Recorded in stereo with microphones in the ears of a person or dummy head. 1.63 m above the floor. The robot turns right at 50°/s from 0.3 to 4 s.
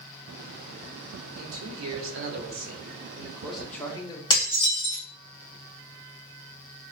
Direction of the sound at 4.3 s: 20° left (ahead or behind).